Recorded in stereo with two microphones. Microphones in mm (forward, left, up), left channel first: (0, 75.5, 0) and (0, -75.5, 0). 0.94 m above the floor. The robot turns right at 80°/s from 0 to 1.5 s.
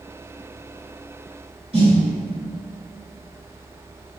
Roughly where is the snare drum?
Right.